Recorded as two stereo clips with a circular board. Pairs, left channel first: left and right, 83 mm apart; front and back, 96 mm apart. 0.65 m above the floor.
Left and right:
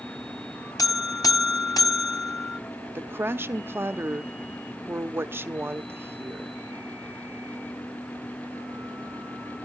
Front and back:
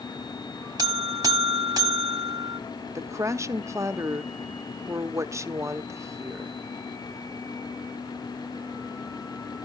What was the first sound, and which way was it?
A buzzer, 130° left.